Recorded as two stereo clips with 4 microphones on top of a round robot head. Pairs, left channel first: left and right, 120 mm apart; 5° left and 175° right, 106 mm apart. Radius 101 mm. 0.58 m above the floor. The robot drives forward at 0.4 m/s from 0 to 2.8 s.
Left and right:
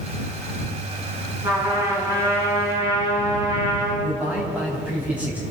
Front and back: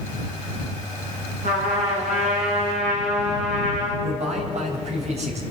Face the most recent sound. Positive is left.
turn(degrees=-170)